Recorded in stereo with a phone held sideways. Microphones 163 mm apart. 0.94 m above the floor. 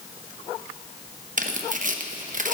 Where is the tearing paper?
55° right (ahead or behind), 0.9 m.